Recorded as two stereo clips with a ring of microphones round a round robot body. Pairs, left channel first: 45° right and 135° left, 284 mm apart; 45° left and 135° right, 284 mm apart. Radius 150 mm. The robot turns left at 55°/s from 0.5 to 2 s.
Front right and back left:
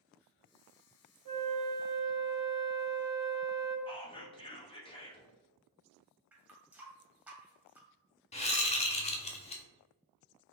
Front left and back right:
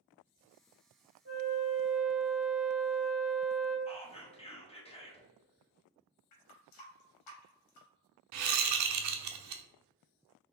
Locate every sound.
1.2 s a flute: 170° left, 1.5 m; by 3.8 s 130° left, 1.5 m
3.9 s whispering: 5° left, 1.0 m
6.3 s a running tap: 50° left, 1.0 m
8.3 s a whoosh: 110° right, 0.6 m